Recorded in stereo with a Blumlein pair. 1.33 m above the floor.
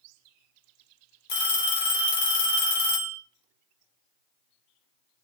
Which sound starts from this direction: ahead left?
A phone ringing, at 1.3 s.